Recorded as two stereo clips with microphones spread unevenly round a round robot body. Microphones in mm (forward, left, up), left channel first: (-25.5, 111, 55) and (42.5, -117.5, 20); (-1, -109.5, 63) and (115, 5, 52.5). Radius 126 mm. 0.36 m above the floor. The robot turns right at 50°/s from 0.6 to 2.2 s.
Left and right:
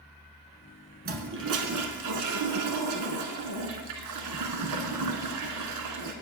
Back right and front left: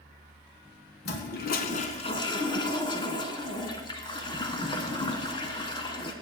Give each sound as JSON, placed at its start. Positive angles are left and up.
{"t": 1.1, "sound": "a toilet flushing", "azimuth_deg": -130, "distance_m": 1.2}